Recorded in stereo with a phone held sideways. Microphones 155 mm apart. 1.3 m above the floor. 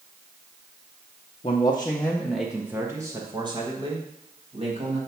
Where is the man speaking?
40° left (ahead or behind), 0.7 m; by 5.0 s 40° right (ahead or behind), 1.9 m.